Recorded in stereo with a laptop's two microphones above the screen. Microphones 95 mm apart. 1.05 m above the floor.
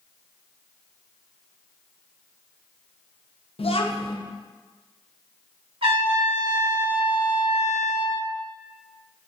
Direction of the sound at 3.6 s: 85° left.